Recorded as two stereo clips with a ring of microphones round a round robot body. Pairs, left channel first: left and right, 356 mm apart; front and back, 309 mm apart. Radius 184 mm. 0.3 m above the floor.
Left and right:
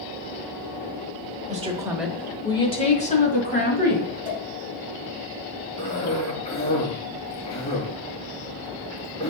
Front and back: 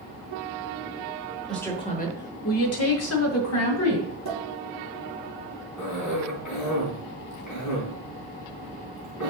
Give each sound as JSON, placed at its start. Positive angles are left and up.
{"t": 1.5, "sound": "a woman speaking", "azimuth_deg": -90, "distance_m": 1.1}
{"t": 4.2, "sound": "a pop", "azimuth_deg": 15, "distance_m": 3.0}
{"t": 5.8, "sound": "a cough", "azimuth_deg": 15, "distance_m": 3.5}